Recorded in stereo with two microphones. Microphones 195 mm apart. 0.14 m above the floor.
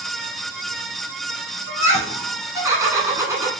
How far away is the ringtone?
No ringtone in this recording.